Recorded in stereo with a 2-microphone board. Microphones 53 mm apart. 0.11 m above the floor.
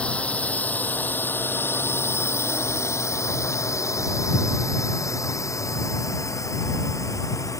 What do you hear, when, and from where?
0.0 s a drone: 20° left (ahead or behind); by 7.6 s 80° left